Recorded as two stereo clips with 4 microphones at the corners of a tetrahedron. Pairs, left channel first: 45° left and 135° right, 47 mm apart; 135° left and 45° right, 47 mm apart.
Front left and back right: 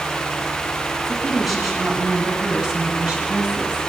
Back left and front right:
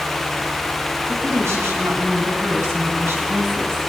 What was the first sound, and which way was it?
A woman speaking, 45° right.